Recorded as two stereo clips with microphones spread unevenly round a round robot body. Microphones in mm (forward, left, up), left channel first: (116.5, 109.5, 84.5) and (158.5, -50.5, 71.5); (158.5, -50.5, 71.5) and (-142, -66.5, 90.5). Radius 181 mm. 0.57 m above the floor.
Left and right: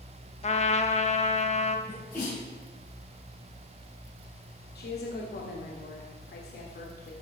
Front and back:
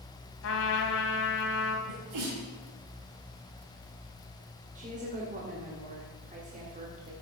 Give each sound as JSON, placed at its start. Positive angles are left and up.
{"t": 0.4, "sound": "a trumpet", "azimuth_deg": 55, "distance_m": 0.9}
{"t": 1.9, "sound": "a sneeze", "azimuth_deg": 175, "distance_m": 3.5}
{"t": 4.8, "sound": "a woman speaking", "azimuth_deg": 115, "distance_m": 1.9}